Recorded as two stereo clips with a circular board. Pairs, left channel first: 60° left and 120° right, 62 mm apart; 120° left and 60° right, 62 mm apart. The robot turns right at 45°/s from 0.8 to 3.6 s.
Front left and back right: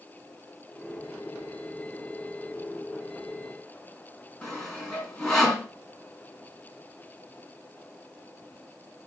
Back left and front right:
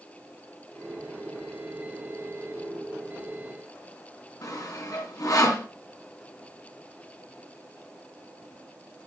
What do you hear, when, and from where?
4.4 s sawing: 140° left, 3.5 m